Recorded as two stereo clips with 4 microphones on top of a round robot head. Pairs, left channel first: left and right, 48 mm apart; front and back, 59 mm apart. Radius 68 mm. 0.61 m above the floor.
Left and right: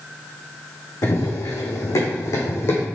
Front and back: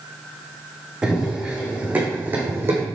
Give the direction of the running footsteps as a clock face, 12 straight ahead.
9 o'clock.